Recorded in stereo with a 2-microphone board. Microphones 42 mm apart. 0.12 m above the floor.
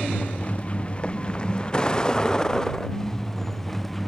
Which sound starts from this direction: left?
A vehicle, at 0.0 s.